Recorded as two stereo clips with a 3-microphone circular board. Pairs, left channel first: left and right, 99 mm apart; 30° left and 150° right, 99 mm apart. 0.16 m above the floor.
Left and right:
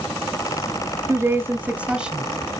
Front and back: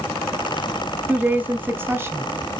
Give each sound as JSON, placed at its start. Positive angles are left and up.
{"t": 1.1, "sound": "a woman speaking", "azimuth_deg": -95, "distance_m": 1.6}